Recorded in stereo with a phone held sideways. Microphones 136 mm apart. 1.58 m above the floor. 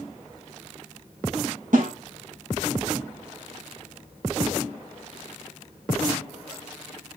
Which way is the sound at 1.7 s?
80° right.